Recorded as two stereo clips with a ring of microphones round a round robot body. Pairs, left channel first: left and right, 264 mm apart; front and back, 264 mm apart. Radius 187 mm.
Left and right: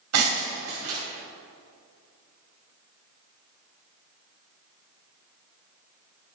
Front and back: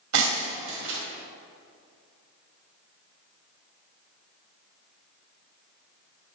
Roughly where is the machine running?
No machine running in this recording.